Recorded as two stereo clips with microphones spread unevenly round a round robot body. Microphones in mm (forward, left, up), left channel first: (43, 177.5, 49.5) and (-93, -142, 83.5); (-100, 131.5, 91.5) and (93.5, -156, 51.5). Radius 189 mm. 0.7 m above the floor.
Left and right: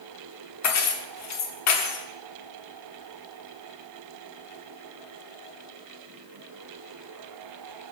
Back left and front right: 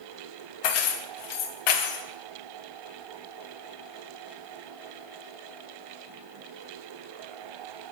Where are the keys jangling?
110° left, 1.0 m.